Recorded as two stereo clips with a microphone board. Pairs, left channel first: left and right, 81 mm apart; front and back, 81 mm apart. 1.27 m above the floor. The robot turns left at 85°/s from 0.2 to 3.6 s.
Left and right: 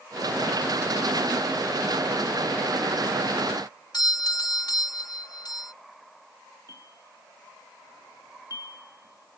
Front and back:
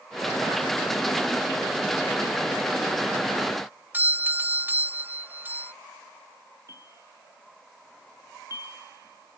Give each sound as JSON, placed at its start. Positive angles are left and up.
{"t": 3.9, "sound": "a doorbell", "azimuth_deg": 115}
{"t": 6.7, "sound": "a bell", "azimuth_deg": -135}